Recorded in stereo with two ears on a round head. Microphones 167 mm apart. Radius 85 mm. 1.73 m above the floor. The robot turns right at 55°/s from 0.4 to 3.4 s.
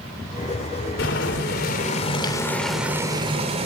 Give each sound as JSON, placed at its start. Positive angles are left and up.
{"t": 1.0, "sound": "boiling", "azimuth_deg": 85, "distance_m": 3.5}